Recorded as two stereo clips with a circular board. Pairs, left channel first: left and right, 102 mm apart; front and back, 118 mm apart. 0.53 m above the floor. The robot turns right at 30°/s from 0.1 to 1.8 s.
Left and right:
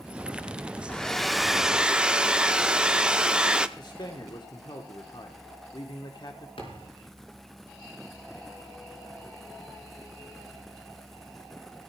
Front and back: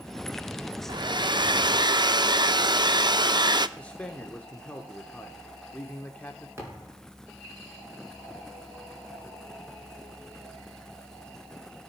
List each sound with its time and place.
0.9 s a hair dryer: 165° left, 0.5 m; by 3.7 s 165° right, 0.5 m
3.8 s a man speaking: 75° left, 1.1 m
6.6 s a thud: 110° left, 4.5 m